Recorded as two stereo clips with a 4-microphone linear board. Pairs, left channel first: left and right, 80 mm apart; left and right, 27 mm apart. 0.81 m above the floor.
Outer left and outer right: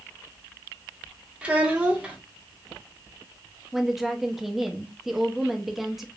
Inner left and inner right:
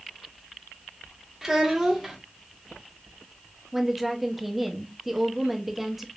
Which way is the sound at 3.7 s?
5° right (ahead or behind).